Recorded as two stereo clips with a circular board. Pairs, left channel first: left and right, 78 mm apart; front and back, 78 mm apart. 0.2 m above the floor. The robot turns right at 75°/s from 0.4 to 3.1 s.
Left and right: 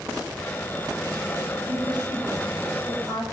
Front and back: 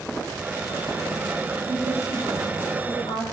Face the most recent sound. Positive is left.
turn(degrees=20)